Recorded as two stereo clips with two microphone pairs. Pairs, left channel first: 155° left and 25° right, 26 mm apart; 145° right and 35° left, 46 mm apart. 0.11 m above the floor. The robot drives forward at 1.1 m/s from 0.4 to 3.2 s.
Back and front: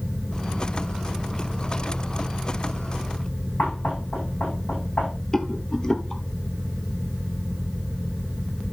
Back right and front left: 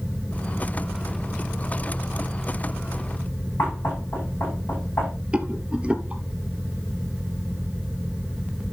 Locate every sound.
3.6 s knocking: straight behind, 7.5 m
5.3 s a rattle: 95° left, 1.2 m